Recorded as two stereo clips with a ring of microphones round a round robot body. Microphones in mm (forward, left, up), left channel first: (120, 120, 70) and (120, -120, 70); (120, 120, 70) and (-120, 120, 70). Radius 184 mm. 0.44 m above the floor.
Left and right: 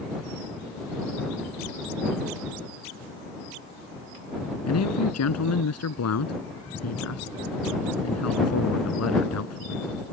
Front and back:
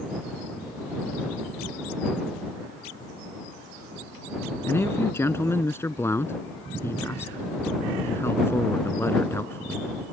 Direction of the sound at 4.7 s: 80° left.